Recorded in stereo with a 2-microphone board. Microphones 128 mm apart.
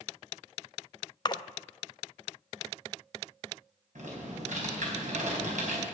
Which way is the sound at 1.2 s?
35° left (ahead or behind).